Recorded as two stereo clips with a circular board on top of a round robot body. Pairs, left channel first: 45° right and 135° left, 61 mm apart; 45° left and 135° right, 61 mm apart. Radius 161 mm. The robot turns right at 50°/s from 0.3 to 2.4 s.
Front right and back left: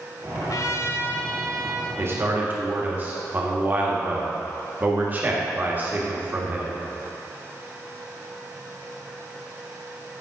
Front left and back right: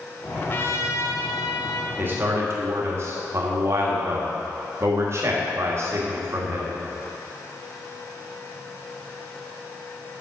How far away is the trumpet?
About 0.9 m.